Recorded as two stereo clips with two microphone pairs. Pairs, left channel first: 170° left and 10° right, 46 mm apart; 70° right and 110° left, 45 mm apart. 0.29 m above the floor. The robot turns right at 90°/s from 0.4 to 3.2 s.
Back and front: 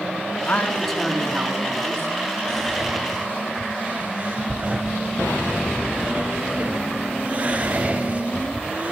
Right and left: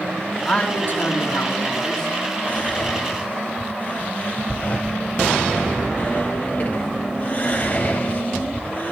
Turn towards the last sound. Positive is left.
turn(degrees=-50)